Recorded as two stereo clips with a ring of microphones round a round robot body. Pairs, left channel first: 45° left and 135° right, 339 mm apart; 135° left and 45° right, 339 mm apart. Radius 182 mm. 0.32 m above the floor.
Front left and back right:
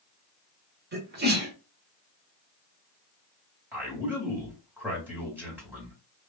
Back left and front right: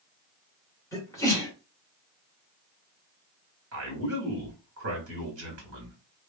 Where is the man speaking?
55° right, 1.7 m.